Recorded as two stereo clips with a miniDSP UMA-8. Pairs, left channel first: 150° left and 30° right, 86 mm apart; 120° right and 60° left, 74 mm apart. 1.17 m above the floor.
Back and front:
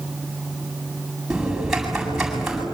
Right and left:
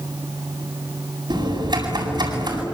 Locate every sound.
1.3 s typing on a keyboard: 55° left, 8.5 m